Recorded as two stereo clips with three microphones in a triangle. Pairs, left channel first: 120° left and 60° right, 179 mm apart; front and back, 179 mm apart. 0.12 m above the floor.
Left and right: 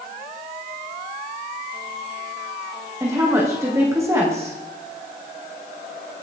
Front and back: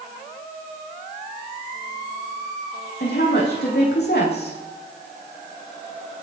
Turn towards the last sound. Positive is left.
turn(degrees=15)